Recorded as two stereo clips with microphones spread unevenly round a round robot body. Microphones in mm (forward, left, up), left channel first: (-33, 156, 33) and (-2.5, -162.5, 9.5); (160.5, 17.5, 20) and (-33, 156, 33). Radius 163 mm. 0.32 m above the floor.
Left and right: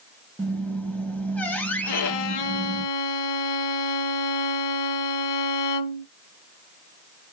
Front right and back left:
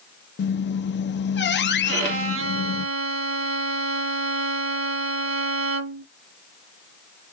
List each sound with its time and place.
0.4 s a squeak: 10° left, 0.6 m
1.9 s a violin: 110° left, 0.9 m